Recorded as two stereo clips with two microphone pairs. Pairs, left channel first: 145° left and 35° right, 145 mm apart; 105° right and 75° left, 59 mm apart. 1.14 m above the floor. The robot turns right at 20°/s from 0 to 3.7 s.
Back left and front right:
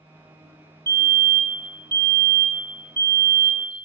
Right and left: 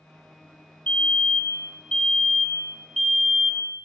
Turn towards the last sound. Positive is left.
turn(degrees=-10)